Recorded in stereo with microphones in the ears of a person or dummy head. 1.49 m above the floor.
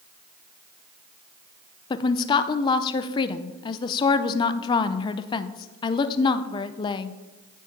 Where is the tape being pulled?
No tape being pulled in this recording.